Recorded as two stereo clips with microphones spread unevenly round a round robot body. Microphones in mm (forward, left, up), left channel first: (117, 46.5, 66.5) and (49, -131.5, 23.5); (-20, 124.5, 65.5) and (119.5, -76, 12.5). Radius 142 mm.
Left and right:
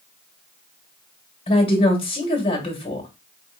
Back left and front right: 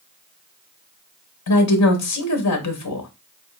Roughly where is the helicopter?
I don't hear a helicopter.